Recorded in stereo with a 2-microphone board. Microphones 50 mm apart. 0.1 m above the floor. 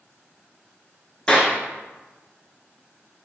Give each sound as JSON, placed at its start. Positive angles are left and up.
{"t": 1.3, "sound": "a clap", "side_deg": 20, "distance_m": 1.1}